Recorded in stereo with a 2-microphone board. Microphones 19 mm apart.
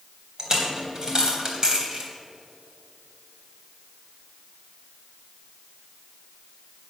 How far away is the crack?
I don't hear a crack.